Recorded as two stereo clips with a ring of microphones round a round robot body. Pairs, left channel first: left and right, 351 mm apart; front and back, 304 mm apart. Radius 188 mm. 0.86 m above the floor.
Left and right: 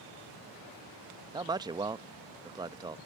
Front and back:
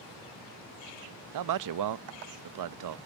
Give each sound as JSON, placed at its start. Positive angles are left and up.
{"t": 1.3, "sound": "a man speaking", "azimuth_deg": -170}